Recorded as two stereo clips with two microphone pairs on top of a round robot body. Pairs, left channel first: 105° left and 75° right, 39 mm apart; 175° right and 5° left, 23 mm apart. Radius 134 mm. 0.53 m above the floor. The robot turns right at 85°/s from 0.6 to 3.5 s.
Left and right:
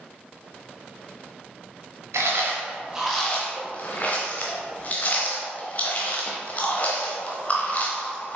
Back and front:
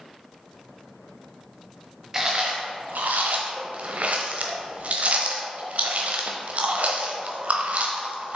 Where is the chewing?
70° right, 0.6 m; by 8.4 s 45° left, 0.6 m.